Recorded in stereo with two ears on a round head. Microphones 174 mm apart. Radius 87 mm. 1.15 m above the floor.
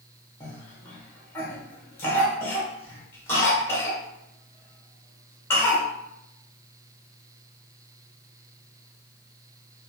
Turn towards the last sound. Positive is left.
turn(degrees=10)  # may be behind; listen again after turning